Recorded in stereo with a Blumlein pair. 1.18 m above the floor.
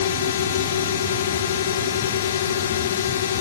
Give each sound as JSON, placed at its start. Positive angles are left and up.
{"t": 0.0, "sound": "a drone", "azimuth_deg": 65}